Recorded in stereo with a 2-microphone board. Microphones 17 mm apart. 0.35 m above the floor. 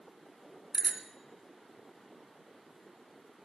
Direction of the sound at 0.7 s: 25° right (ahead or behind).